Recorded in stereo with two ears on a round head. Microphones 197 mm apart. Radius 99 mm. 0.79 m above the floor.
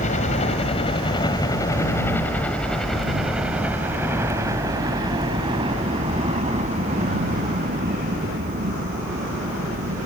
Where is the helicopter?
35° left (ahead or behind); by 10.1 s 45° right (ahead or behind).